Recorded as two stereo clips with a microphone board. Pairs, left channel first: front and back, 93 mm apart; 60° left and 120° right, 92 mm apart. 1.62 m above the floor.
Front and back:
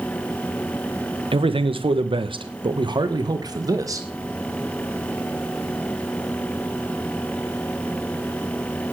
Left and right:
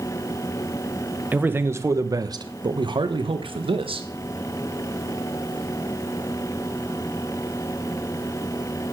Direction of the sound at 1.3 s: 170° left.